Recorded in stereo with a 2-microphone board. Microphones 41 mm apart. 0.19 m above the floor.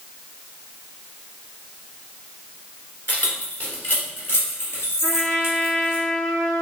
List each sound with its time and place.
3.1 s keys jangling: 45° left (ahead or behind), 1.7 m; by 6.0 s 75° left (ahead or behind), 2.5 m
5.0 s a trumpet: 5° left (ahead or behind), 1.4 m